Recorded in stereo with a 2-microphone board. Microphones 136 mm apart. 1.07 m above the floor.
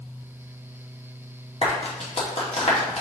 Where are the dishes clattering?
No dishes clattering in this recording.